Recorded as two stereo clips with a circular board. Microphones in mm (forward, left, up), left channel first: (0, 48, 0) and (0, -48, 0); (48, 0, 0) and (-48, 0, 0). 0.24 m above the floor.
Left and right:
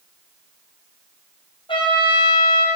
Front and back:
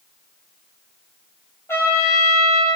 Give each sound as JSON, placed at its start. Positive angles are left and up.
{"t": 1.7, "sound": "a trumpet", "azimuth_deg": 65, "distance_m": 3.0}